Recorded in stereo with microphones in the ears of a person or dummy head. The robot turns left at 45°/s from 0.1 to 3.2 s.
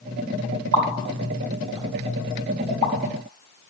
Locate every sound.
0.7 s a pop: 70° right (ahead or behind), 1.4 m; by 2.9 s 30° left (ahead or behind), 1.4 m